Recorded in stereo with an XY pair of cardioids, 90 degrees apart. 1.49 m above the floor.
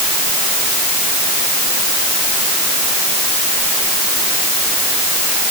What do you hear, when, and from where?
Only background noise.